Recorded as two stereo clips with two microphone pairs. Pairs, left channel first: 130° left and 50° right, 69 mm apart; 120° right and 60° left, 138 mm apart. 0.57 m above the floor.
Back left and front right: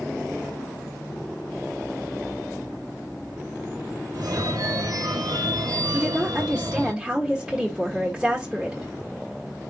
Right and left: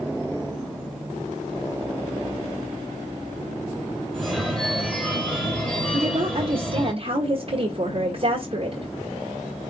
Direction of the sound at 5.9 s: 25° left.